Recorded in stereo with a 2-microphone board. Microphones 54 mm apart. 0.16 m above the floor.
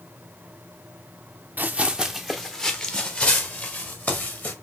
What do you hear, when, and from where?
1.6 s running footsteps: 35° right (ahead or behind), 0.7 m; by 4.5 s 35° left (ahead or behind), 2 m